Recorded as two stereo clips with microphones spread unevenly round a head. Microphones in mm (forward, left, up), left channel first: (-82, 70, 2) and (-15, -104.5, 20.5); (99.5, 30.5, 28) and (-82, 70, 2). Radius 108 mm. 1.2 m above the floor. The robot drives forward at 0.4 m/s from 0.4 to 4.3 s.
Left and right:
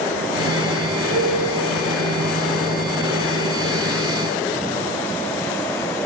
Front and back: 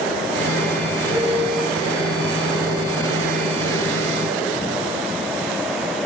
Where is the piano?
105° right, 4 m.